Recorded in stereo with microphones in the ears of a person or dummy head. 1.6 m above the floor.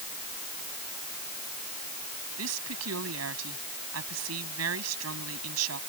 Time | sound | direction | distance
2.4 | a woman speaking | 90° right | ?